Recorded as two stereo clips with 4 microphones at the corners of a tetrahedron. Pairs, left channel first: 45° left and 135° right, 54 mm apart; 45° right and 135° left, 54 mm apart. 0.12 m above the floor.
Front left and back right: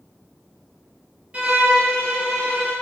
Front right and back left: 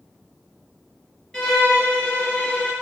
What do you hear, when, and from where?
1.3 s a violin: 115° right, 1.7 m